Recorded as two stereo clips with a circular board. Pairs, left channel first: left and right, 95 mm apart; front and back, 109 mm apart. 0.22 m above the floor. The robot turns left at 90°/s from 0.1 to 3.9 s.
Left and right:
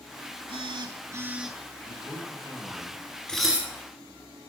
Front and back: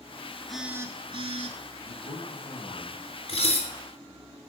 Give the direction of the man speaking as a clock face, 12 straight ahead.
11 o'clock.